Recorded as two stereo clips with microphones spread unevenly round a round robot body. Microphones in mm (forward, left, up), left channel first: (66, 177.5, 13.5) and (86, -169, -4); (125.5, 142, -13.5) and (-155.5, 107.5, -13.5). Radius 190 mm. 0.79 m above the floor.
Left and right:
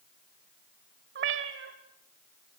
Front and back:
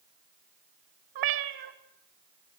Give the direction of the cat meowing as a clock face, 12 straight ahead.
5 o'clock.